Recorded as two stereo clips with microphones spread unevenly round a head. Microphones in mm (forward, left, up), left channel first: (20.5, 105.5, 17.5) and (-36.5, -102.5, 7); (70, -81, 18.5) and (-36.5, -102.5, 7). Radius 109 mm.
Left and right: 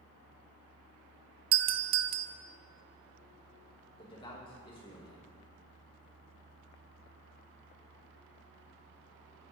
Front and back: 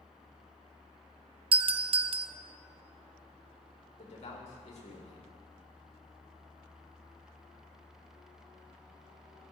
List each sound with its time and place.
1.5 s a doorbell: 145° right, 0.8 m
4.0 s a man speaking: 5° left, 3.5 m